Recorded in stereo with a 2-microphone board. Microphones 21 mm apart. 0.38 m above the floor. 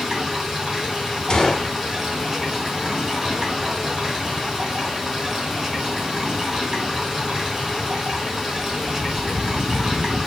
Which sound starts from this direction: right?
Running water, at 0.0 s.